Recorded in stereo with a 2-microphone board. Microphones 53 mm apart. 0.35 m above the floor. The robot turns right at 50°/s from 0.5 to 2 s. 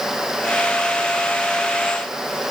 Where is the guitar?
No guitar in this recording.